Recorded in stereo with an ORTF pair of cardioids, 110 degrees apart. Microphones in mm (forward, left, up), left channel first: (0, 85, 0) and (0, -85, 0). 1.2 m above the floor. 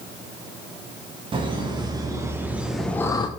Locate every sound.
1.3 s laughter: 30° right, 1.6 m; by 3.3 s 30° left, 0.5 m